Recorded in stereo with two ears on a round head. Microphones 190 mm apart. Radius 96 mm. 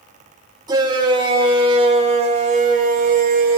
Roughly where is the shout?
Right.